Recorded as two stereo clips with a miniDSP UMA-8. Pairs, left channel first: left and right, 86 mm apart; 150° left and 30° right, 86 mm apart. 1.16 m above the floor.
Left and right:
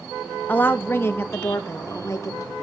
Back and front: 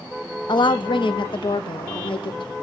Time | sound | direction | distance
0.5 | a woman speaking | 160° left | 0.9 m